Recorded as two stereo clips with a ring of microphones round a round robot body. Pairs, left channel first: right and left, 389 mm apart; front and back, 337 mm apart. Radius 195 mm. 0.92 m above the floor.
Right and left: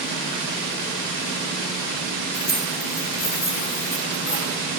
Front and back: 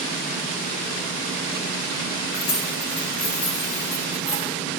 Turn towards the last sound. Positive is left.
turn(degrees=-40)